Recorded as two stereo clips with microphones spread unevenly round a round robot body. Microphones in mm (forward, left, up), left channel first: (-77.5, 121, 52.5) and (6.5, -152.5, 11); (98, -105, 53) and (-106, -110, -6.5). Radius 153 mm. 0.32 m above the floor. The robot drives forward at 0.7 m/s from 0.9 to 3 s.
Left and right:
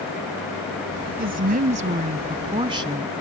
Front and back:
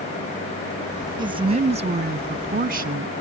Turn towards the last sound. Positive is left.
turn(degrees=-145)